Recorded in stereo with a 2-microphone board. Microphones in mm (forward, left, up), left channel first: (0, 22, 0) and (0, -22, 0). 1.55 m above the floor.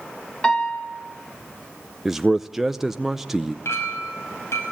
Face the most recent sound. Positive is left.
turn(degrees=80)